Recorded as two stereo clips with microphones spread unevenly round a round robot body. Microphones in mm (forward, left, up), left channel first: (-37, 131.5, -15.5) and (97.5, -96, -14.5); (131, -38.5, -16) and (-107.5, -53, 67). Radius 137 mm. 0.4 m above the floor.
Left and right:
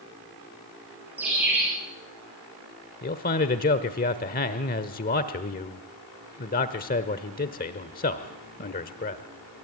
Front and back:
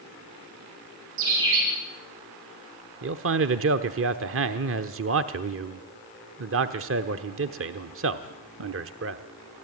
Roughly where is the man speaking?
Behind left.